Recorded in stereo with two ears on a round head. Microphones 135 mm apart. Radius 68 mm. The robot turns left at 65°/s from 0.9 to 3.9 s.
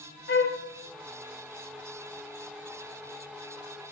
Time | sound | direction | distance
0.3 | a flute | 60° left (ahead or behind) | 0.7 m